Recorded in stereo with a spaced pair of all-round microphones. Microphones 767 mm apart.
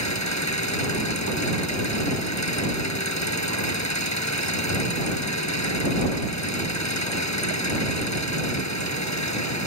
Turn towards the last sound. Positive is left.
turn(degrees=20)  # may be behind; listen again after turning